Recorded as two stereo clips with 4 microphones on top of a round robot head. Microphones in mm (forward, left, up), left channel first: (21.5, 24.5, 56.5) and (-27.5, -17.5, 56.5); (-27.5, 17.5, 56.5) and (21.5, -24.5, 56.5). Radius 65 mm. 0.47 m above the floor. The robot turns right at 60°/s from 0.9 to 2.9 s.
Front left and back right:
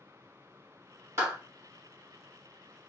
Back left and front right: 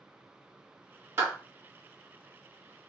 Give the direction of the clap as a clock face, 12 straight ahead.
3 o'clock.